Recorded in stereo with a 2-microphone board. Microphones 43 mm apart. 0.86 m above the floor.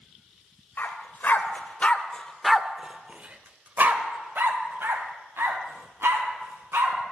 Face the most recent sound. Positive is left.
turn(degrees=-70)  # may be behind; listen again after turning